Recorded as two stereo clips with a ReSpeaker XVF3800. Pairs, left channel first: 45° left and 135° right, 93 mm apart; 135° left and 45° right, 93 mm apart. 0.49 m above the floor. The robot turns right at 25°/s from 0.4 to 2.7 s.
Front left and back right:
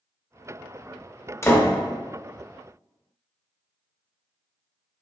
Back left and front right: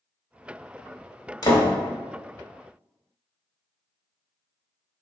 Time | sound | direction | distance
1.4 | a door slam | 100° left | 1.0 m